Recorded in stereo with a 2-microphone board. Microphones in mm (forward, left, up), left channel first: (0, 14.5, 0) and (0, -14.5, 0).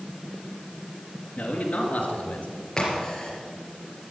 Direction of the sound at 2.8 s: 20° left (ahead or behind).